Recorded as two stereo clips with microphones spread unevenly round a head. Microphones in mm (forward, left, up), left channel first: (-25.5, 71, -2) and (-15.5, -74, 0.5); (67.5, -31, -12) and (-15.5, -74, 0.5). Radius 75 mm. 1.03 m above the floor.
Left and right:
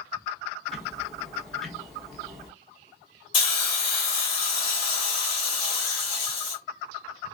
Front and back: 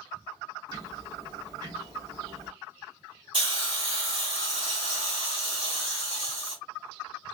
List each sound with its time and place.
0.7 s ticking: straight behind, 0.9 m
3.3 s a hiss: 150° left, 1.6 m